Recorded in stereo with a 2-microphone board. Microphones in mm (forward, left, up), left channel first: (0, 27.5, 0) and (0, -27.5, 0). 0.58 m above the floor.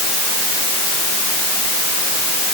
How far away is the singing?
I don't hear singing.